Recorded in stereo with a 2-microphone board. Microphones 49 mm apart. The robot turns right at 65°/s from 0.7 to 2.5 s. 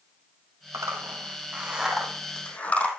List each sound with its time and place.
0.7 s a zipper: 80° right, 4 m; by 2.9 s 25° left (ahead or behind), 4 m